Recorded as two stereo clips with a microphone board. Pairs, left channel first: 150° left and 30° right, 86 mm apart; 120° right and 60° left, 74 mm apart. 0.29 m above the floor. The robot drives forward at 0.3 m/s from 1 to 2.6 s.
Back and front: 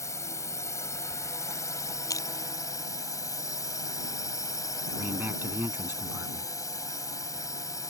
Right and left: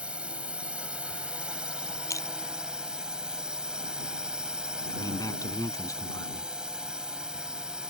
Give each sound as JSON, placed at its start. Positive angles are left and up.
{"t": 0.0, "sound": "a drone", "azimuth_deg": 125}
{"t": 2.1, "sound": "crushing", "azimuth_deg": -160}
{"t": 4.9, "sound": "a man speaking", "azimuth_deg": -90}